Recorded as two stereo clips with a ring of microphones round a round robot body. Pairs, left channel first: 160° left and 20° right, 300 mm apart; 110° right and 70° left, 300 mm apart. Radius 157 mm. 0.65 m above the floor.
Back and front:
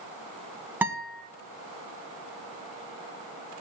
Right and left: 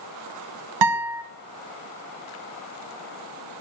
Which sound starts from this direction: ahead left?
A guitar, at 0.8 s.